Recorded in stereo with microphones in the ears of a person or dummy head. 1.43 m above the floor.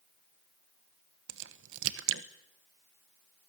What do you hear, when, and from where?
1.3 s a crack: 70° right (ahead or behind), 1.3 m